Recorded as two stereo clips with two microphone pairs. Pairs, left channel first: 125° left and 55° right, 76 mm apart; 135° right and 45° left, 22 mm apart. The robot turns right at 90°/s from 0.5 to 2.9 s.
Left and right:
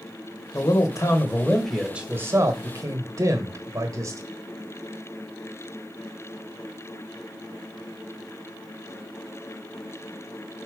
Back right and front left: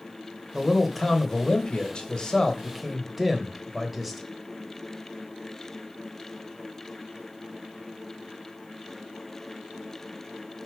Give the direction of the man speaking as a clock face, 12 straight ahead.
8 o'clock.